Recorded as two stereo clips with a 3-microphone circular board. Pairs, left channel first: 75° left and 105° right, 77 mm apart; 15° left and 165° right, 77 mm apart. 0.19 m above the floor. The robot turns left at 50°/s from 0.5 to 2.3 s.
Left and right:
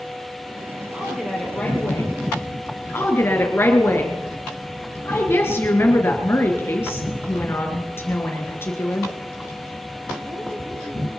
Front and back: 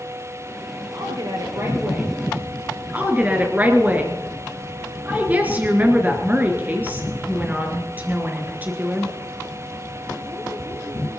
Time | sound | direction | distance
0.9 | a woman speaking | straight behind | 4.5 m
2.9 | a woman speaking | 130° left | 2.5 m